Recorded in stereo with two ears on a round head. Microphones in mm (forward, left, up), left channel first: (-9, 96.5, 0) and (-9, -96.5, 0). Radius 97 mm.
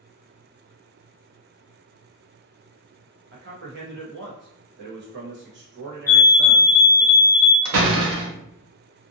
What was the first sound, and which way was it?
A man speaking, 50° right (ahead or behind).